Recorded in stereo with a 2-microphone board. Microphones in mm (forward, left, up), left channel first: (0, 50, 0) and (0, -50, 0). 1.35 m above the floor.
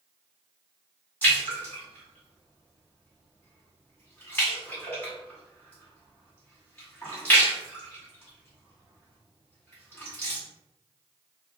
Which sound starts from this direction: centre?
A splash, at 1.2 s.